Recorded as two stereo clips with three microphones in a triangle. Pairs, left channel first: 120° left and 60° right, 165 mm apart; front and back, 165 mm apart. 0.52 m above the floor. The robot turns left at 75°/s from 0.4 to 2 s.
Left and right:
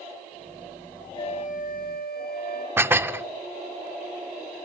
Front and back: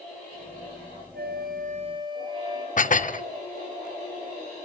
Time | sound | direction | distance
1.1 | a flute | 175° right | 3.5 m
2.8 | dishes clattering | 15° left | 0.6 m